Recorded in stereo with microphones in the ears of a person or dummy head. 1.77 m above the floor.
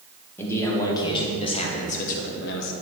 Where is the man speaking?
20° left (ahead or behind), 1.7 m; by 2.7 s 65° left (ahead or behind), 1.0 m.